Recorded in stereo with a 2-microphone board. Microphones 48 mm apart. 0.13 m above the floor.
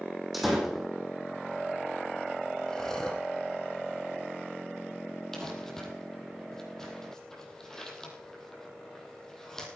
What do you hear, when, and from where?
0.3 s a door slam: centre (ahead or behind), 4.5 m
2.7 s breathing: 15° left (ahead or behind), 3 m
5.3 s crumpling: 10° left (ahead or behind), 4.5 m